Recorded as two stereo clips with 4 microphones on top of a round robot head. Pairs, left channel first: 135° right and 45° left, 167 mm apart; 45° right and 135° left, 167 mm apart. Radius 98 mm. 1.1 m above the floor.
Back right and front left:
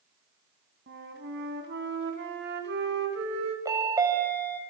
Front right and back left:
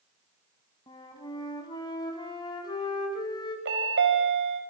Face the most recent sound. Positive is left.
turn(degrees=120)